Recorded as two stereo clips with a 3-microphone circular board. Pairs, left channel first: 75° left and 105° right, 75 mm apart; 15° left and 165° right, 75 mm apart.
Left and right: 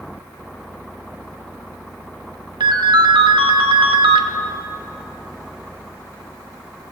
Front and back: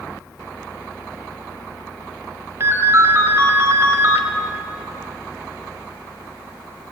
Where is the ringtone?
110° right, 0.9 m.